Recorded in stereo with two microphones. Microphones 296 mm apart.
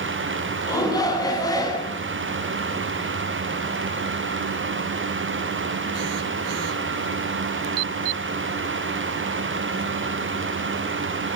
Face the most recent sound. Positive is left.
turn(degrees=10)  # may be behind; listen again after turning